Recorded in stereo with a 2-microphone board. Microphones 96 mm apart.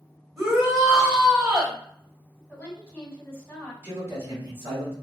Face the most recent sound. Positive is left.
turn(degrees=-30)  # may be behind; listen again after turning